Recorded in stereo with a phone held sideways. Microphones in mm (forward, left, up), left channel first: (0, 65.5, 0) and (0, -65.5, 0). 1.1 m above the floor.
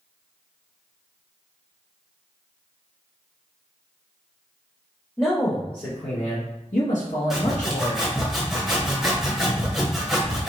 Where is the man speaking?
20° left (ahead or behind), 0.8 m; by 8.1 s 85° left, 1.8 m.